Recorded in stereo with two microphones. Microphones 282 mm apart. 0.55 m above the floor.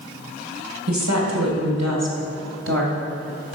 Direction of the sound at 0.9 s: 75° right (ahead or behind).